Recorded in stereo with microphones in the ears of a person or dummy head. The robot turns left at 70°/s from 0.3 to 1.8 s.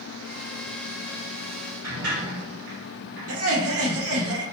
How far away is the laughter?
About 1.1 m.